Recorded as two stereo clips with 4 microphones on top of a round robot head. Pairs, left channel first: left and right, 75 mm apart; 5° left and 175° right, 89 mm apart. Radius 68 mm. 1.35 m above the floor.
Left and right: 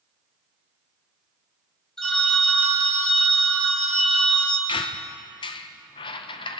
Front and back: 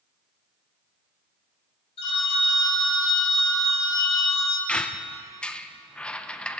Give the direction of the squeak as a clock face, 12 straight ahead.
9 o'clock.